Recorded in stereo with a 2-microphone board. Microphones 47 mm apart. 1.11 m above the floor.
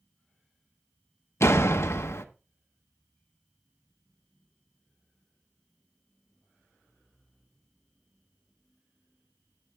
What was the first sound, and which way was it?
A door slam, 75° left (ahead or behind).